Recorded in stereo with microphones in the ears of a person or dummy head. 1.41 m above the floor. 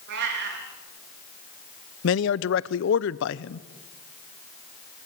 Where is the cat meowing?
60° right (ahead or behind), 3.5 m.